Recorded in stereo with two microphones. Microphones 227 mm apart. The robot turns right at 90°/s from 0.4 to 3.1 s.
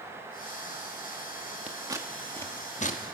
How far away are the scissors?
About 1.0 m.